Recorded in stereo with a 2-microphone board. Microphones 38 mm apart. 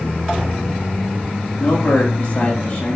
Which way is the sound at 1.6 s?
30° left (ahead or behind).